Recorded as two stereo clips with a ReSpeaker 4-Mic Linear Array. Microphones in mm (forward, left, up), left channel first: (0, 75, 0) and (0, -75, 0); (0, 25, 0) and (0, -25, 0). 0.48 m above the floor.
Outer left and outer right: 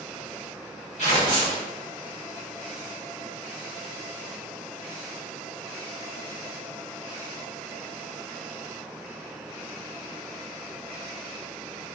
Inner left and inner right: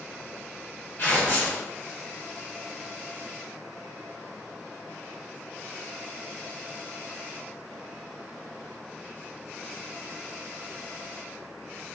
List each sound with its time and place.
1.0 s tearing paper: 50° left (ahead or behind), 2.0 m